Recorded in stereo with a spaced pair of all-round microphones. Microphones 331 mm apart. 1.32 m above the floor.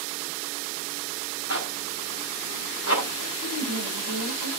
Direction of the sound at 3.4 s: 85° right.